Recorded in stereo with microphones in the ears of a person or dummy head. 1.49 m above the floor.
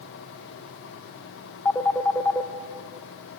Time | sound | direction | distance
1.6 | a phone ringing | 10° left (ahead or behind) | 0.9 m